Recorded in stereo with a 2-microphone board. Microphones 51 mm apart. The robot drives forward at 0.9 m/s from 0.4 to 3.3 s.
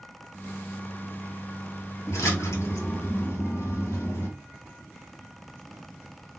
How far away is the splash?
About 1.5 m.